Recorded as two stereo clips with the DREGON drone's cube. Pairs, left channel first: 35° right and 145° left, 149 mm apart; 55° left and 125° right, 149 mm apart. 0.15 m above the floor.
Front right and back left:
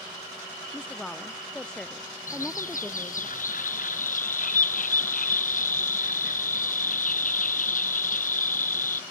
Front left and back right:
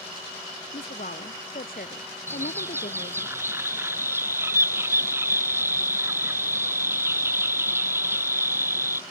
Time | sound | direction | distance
0.7 | a woman speaking | 50° left | ?
2.3 | a bird | 50° right | ?